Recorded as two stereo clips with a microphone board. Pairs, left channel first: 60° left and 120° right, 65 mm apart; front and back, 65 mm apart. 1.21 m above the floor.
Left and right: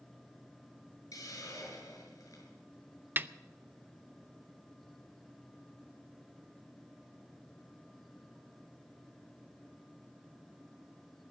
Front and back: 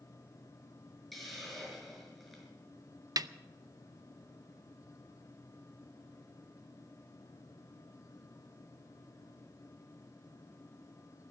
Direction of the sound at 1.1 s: 90° left.